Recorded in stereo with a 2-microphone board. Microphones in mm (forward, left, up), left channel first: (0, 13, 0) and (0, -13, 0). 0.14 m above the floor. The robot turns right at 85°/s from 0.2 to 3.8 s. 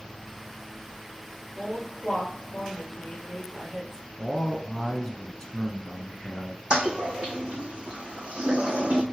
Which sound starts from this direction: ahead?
A woman speaking, at 1.6 s.